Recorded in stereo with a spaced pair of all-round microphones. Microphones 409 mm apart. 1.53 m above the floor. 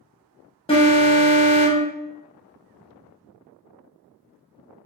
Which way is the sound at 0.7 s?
15° left (ahead or behind).